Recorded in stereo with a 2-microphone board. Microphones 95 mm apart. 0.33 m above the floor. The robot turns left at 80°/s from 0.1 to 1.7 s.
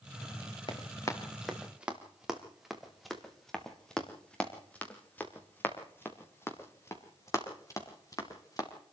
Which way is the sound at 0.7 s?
60° left (ahead or behind).